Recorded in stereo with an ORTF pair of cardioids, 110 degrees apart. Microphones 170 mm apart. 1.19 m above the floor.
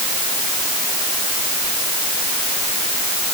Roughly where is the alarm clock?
I don't hear an alarm clock.